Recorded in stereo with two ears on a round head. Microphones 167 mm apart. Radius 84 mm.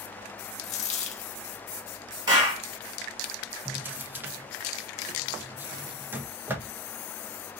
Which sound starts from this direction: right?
A clap, at 2.3 s.